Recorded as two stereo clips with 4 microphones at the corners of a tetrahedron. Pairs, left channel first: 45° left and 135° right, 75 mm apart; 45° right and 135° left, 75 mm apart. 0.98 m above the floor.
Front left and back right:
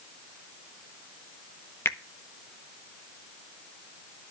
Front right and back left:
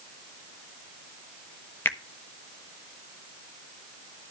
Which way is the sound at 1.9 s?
Straight ahead.